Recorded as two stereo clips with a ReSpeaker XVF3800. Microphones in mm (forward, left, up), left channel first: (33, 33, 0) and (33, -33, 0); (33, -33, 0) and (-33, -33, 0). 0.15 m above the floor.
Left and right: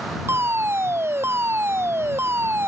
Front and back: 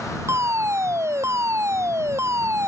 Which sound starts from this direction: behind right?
A fire alarm, at 0.3 s.